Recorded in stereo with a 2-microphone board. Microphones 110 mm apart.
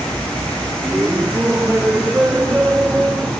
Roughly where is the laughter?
Centre.